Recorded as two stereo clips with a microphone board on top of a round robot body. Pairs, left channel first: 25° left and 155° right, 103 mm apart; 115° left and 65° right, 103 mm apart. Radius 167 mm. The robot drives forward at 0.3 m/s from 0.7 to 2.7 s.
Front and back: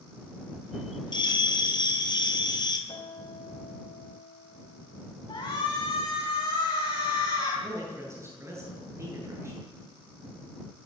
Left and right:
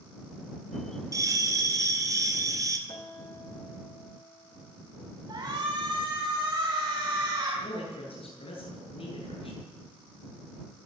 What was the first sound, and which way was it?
A bell, 15° right.